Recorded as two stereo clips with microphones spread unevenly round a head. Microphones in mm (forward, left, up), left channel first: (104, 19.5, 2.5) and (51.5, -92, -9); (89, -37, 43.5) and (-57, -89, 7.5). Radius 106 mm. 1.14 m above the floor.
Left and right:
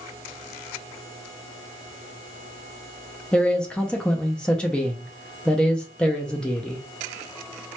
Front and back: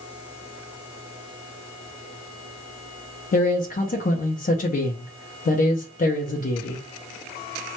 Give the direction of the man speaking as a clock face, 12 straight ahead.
1 o'clock.